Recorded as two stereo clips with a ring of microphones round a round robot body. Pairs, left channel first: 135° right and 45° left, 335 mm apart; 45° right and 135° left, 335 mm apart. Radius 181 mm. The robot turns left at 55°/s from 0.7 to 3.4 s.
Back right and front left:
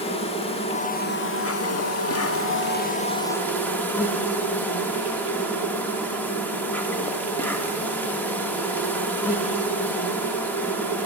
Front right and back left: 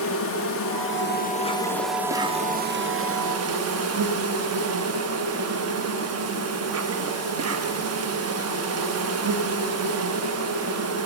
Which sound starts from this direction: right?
An insect, at 0.0 s.